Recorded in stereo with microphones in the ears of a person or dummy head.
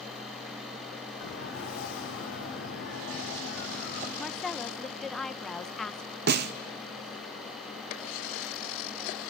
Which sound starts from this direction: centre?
A woman speaking, at 4.2 s.